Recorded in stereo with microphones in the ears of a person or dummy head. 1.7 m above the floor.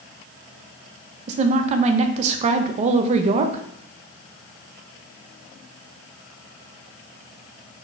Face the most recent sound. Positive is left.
turn(degrees=-40)  # may be behind; listen again after turning